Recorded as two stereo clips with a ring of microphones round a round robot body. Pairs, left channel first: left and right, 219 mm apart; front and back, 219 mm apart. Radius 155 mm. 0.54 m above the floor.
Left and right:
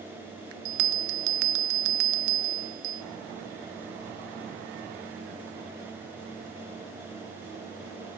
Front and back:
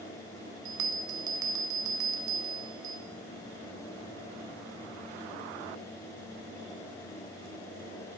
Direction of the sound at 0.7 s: 105° right.